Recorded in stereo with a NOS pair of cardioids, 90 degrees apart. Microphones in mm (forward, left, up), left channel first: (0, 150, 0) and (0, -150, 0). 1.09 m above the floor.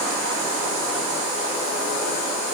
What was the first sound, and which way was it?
Only background noise.